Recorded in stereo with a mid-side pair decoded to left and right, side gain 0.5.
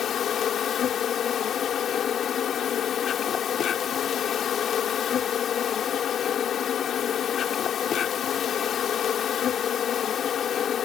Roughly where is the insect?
Ahead left.